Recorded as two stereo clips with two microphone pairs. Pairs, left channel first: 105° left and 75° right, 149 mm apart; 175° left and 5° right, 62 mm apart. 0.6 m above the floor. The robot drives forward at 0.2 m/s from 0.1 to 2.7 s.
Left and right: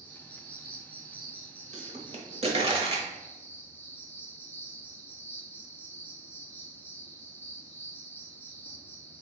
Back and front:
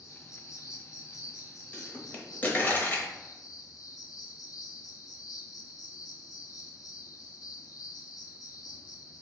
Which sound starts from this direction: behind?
An insect, at 0.0 s.